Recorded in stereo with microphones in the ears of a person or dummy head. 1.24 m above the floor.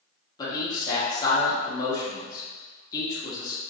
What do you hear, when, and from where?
0.4 s a man speaking: 20° left (ahead or behind), 1.3 m